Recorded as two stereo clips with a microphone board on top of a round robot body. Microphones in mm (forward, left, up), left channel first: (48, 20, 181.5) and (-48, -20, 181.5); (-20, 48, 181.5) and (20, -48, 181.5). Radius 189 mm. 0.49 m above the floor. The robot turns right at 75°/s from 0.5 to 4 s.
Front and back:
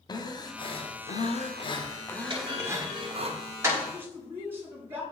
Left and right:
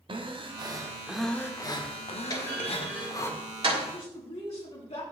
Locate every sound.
0.1 s breathing: 30° right, 1.2 m; by 3.3 s straight behind, 1.2 m
2.3 s a clunk: 165° left, 5 m; by 3.9 s 75° right, 5 m
3.9 s a woman speaking: 125° left, 5.5 m; by 5.0 s 130° left, 5.5 m